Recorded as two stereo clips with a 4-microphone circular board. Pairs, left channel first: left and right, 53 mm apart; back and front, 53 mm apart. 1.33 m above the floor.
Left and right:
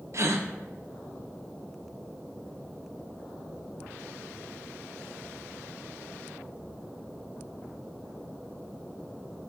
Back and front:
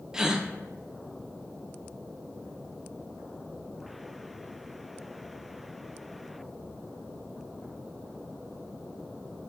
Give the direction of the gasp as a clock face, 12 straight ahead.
3 o'clock.